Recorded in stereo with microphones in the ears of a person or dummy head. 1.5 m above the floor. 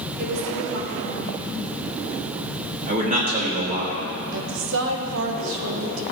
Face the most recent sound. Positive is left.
turn(degrees=-70)  # may be behind; listen again after turning